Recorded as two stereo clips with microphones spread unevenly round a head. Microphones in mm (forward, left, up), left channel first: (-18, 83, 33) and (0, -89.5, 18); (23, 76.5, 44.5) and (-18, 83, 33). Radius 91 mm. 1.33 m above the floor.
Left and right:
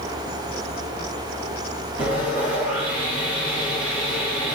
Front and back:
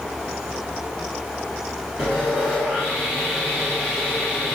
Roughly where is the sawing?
Behind right.